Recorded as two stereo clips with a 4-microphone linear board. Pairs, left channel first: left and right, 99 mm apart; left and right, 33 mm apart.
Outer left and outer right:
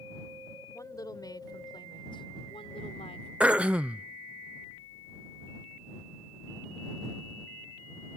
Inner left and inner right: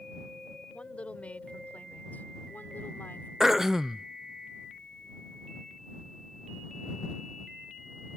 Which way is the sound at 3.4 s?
10° right (ahead or behind).